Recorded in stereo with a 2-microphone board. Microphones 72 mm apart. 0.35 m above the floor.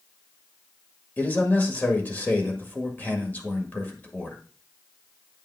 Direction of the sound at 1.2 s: 25° left (ahead or behind).